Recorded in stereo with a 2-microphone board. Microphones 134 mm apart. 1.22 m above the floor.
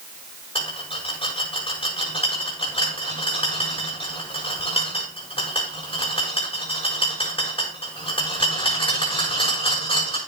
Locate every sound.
0.6 s a rattle: 40° left (ahead or behind), 6.5 m